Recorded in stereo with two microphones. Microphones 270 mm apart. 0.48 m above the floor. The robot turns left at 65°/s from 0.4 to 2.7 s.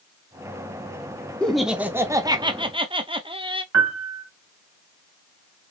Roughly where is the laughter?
Centre.